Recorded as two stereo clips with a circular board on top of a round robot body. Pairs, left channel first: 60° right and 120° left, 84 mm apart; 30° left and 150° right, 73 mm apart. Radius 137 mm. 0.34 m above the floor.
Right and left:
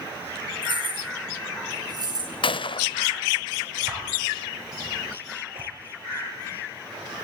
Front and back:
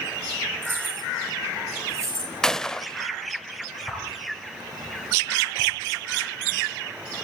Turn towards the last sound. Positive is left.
turn(degrees=120)